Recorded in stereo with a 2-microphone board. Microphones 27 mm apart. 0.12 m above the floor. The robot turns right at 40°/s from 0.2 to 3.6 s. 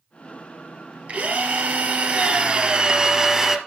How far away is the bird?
I don't hear a bird.